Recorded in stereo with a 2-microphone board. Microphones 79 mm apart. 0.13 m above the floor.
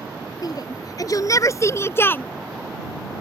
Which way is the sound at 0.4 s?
55° left (ahead or behind).